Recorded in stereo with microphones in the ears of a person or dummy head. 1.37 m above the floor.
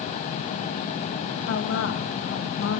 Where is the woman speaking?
70° left (ahead or behind), 1.9 m.